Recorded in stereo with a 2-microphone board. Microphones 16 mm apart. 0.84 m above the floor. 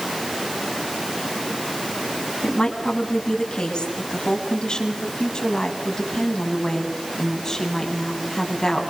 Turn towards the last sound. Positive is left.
turn(degrees=25)  # may be behind; listen again after turning